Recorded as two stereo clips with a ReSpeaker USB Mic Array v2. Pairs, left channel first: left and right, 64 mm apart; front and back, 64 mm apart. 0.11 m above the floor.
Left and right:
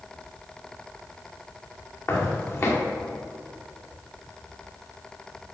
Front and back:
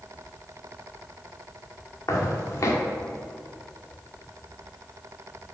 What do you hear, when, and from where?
2.1 s footsteps: 40° left, 2.5 m